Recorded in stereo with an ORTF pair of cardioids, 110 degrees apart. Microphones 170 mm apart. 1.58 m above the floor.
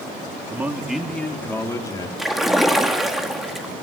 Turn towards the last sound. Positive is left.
turn(degrees=0)